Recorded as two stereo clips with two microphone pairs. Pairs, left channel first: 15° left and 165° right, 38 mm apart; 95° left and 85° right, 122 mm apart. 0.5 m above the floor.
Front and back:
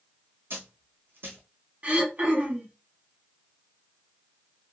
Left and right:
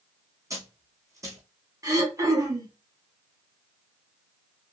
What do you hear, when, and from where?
0.5 s a dropped coin: 150° right, 1.8 m
1.8 s throat clearing: 135° right, 1.2 m